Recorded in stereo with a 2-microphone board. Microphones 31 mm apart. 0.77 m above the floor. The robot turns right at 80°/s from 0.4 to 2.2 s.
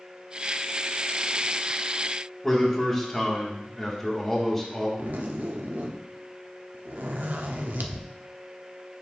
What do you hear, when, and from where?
2.4 s a man speaking: 10° left (ahead or behind), 1.8 m
5.0 s a zipper: 85° right, 0.7 m